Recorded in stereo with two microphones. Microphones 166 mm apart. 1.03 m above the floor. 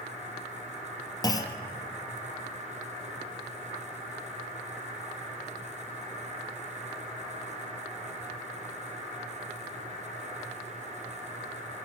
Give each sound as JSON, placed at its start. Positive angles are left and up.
{"t": 1.2, "sound": "a clunk", "side_deg": 25, "distance_m": 1.0}